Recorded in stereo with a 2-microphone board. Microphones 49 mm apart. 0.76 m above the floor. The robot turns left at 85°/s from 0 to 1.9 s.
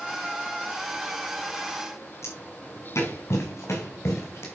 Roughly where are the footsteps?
Left.